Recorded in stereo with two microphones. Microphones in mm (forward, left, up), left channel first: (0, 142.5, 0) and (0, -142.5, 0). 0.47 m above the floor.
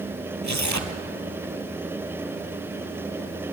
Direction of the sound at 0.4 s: 80° right.